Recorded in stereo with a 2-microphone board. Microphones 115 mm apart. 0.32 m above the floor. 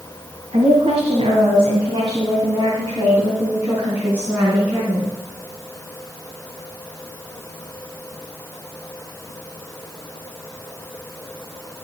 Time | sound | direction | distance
0.5 | a woman speaking | 60° right (ahead or behind) | 2.5 m